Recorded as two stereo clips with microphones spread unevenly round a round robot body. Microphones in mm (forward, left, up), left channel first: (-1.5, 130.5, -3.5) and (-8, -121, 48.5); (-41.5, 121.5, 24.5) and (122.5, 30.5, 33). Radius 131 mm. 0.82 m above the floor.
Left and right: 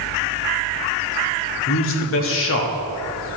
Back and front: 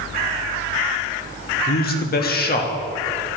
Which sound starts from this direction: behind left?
A man speaking, at 1.7 s.